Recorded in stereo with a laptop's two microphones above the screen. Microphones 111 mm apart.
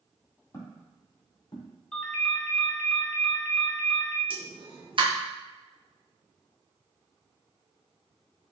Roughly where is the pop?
Right.